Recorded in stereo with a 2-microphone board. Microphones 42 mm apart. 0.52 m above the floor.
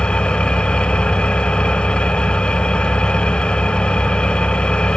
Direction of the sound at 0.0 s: 25° left (ahead or behind).